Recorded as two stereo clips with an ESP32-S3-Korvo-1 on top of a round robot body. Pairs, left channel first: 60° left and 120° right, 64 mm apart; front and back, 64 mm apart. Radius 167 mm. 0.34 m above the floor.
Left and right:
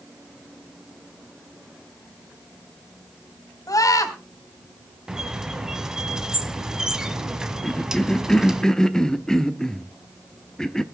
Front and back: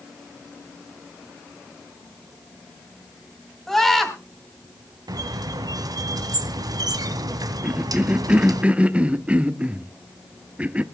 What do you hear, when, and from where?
3.7 s a scream: 85° left, 3.5 m
5.1 s a squeak: 160° left, 1.7 m
7.6 s a cough: 135° left, 1.1 m